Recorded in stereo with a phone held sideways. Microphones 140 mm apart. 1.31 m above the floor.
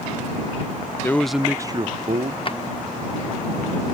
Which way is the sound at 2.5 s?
40° left (ahead or behind).